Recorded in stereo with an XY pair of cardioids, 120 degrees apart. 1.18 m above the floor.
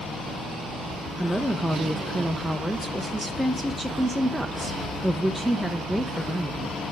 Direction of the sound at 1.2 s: Straight ahead.